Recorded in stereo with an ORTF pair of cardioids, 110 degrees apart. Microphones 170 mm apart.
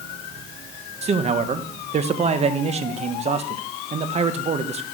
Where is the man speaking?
40° right, 1.1 m.